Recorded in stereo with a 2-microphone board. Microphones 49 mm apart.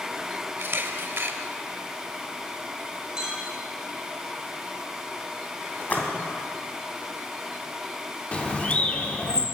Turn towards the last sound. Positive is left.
turn(degrees=25)  # may be behind; listen again after turning